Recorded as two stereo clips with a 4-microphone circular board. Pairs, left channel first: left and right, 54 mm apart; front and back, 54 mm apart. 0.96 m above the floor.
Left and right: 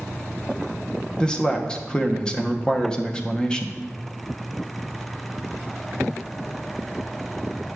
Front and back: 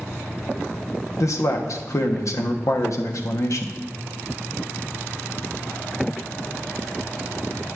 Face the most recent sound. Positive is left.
turn(degrees=15)